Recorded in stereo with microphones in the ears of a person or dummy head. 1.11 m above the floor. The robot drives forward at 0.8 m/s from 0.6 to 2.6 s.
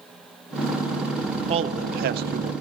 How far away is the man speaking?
About 0.8 m.